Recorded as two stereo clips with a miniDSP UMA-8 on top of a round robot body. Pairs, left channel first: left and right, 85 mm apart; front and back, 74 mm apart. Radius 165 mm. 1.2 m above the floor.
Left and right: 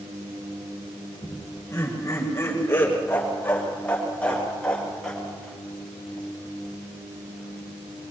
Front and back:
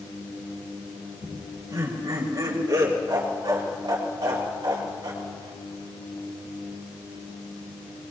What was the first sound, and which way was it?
Laughter, 140° left.